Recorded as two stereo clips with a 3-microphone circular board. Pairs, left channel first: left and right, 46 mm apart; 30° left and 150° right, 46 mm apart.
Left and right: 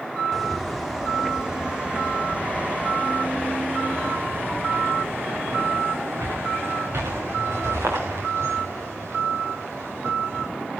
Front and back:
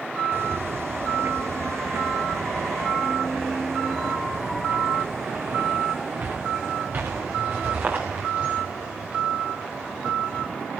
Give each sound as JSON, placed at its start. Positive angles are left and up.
{"t": 0.3, "sound": "footsteps", "azimuth_deg": -175, "distance_m": 3.0}